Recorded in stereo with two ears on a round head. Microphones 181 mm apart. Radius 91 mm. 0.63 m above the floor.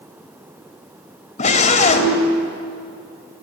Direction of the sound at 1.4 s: 35° left (ahead or behind).